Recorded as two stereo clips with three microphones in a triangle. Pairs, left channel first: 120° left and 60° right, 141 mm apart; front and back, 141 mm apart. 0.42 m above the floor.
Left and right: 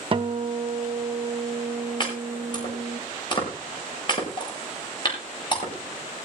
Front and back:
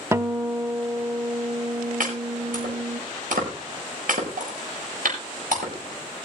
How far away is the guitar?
About 0.7 m.